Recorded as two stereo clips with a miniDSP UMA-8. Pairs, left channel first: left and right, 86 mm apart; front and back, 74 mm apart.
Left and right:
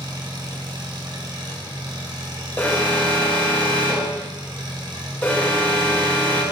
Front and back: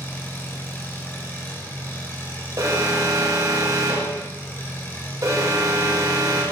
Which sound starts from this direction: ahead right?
An engine running, at 0.0 s.